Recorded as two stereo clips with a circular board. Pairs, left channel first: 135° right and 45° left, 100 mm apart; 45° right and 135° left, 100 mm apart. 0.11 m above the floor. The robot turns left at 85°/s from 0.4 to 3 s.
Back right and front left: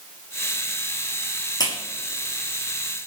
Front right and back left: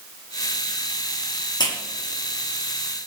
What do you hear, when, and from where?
1.6 s a clap: 85° right, 5.5 m; by 1.7 s 95° right, 5.5 m